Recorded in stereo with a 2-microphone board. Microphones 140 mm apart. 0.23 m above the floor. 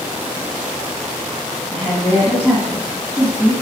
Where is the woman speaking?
5° right (ahead or behind), 1.9 m.